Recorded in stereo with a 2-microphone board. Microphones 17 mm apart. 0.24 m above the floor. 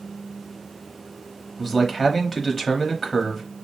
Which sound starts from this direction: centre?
A man speaking, at 1.6 s.